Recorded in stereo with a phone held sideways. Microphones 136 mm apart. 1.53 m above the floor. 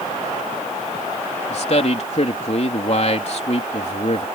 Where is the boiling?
No boiling in this recording.